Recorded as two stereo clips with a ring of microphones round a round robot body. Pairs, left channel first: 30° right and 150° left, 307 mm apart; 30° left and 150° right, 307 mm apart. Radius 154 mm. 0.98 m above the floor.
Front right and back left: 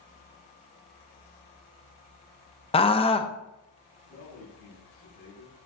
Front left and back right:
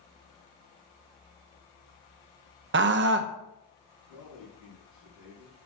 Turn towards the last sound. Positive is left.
turn(degrees=15)